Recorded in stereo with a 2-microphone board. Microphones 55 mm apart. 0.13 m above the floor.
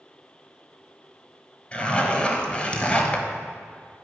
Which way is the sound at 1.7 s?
20° left (ahead or behind).